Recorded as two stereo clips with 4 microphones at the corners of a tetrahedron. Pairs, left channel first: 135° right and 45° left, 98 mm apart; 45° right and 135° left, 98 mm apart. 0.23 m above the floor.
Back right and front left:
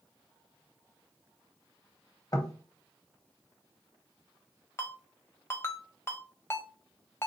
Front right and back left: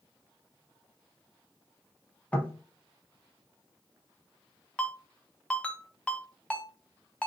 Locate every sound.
2.3 s knocking: 110° right, 0.8 m
4.8 s a ringtone: 105° right, 0.7 m